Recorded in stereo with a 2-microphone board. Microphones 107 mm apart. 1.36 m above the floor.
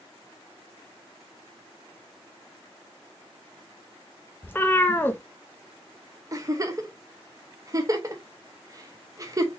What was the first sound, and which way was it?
A cat meowing, 20° left (ahead or behind).